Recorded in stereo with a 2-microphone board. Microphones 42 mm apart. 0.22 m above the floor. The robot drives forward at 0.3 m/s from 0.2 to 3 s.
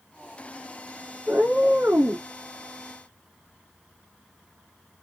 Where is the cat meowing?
65° right (ahead or behind), 1.6 m; by 2.3 s 70° right (ahead or behind), 1.5 m.